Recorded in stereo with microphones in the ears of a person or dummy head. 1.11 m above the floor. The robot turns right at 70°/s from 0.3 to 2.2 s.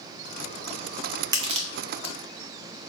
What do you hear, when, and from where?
1.3 s crushing: 20° right (ahead or behind), 0.6 m; by 2.1 s 70° right (ahead or behind), 0.6 m